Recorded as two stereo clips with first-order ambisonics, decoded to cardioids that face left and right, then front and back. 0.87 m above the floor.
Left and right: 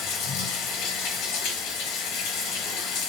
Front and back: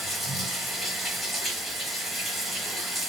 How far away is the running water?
About 1.0 m.